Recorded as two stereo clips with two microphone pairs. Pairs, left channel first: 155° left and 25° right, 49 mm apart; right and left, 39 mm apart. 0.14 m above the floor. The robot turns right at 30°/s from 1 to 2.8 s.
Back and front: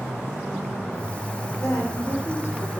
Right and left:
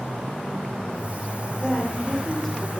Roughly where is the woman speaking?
Behind left.